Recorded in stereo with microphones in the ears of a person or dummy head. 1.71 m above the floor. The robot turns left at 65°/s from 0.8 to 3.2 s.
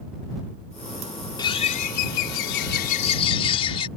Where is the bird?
150° left; by 3.9 s 35° left.